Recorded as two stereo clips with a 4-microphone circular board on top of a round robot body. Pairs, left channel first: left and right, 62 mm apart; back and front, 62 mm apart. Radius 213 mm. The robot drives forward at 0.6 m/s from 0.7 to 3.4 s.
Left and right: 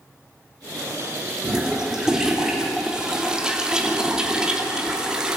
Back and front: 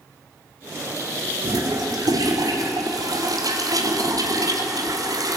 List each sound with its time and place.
1.4 s a toilet flushing: 5° right, 4 m; by 5.4 s 10° right, 3 m